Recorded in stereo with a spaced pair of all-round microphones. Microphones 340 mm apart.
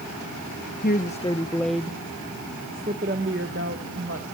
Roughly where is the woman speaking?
Left.